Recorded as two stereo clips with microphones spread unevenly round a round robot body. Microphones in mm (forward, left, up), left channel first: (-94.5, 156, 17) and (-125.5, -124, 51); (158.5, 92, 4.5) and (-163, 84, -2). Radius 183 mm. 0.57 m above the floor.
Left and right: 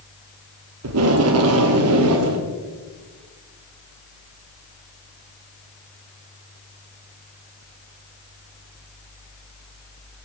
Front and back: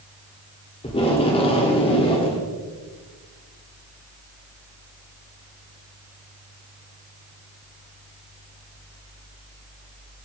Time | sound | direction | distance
0.8 | tape being pulled | 70° right | 1.2 m